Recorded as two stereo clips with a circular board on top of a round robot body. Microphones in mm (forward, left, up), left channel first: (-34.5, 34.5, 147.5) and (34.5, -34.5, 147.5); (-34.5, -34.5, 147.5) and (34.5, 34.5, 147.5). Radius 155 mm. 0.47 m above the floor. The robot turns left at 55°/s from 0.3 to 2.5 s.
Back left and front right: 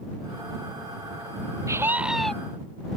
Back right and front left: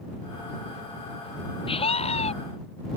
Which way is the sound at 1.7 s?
105° right.